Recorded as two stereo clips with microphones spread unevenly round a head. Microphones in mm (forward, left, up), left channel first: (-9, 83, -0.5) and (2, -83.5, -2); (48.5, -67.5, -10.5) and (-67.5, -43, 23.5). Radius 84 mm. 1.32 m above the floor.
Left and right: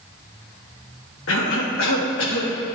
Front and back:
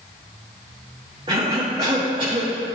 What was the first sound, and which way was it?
A cough, 105° left.